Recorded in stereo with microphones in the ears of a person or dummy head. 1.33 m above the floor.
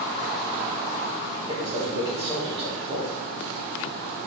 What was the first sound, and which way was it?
A man speaking, 20° right (ahead or behind).